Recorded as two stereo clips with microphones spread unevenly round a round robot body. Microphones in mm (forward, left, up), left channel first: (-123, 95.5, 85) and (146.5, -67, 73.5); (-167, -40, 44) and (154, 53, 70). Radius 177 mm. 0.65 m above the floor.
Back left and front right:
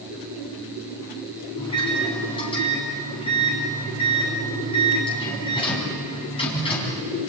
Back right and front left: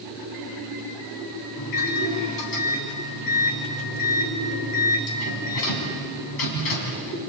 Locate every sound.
1.6 s a microwave: 135° right, 4.5 m